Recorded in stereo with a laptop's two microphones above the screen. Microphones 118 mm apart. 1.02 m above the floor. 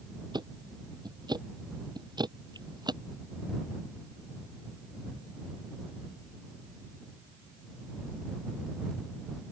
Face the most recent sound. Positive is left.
turn(degrees=-40)  # may be behind; listen again after turning